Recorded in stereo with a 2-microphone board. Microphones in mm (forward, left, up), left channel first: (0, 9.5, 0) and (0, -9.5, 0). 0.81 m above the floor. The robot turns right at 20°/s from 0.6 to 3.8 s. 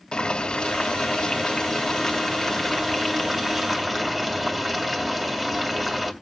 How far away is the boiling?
About 2.5 m.